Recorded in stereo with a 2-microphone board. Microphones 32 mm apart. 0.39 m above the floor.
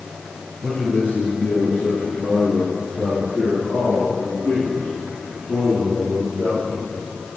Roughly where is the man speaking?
Left.